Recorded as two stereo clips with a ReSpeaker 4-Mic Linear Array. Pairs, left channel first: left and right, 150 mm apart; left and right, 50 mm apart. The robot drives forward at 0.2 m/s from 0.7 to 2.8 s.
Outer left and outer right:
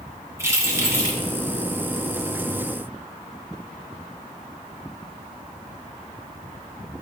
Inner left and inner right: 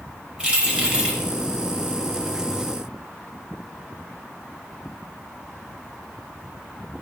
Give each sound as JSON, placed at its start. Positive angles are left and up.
{"t": 0.4, "sound": "keys jangling", "side_deg": -20, "distance_m": 1.1}